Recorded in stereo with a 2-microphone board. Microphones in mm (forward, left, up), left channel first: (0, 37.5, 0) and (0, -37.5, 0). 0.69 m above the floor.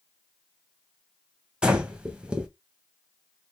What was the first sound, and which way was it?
Breathing, 15° right (ahead or behind).